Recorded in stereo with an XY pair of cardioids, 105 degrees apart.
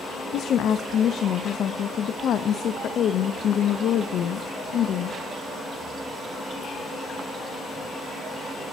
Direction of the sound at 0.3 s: 60° left.